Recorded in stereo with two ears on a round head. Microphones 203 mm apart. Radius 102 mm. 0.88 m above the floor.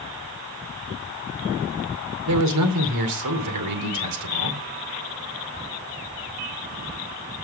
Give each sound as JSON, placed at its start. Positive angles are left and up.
{"t": 2.3, "sound": "a man speaking", "side_deg": -85, "distance_m": 2.5}